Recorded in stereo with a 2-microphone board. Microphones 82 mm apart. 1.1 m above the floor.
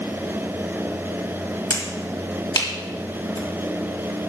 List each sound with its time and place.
1.7 s a finger snap: 60° left (ahead or behind), 1.7 m